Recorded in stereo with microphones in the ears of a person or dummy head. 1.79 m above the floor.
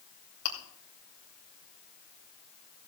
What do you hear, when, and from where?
0.5 s chewing: 60° left (ahead or behind), 3 m